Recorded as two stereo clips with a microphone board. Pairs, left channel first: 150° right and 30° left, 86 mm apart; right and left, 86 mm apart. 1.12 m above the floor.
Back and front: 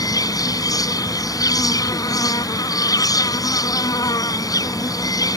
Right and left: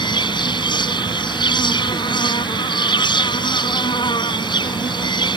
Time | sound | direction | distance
0.0 | an insect | 110° right | ?